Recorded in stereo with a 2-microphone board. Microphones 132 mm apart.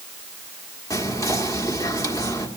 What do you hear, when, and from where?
0.9 s whispering: 25° left (ahead or behind), 1.5 m